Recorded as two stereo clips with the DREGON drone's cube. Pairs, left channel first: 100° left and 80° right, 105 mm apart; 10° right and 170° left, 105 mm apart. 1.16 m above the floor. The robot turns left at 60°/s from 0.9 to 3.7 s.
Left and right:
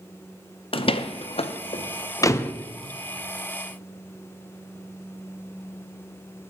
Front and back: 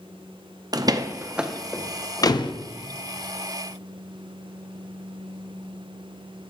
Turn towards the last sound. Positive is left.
turn(degrees=-45)